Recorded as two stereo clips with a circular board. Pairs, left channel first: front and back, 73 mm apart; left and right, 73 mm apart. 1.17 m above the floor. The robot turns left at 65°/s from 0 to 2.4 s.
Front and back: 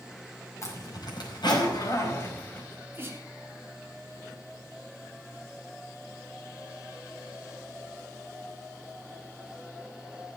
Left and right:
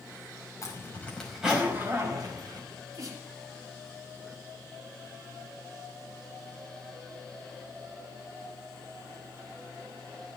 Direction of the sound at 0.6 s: 45° left.